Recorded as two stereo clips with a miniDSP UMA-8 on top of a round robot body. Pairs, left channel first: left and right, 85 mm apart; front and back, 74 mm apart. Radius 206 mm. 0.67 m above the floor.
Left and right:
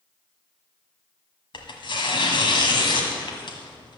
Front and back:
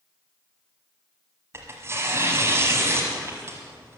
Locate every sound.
1.5 s tearing paper: 120° left, 1.3 m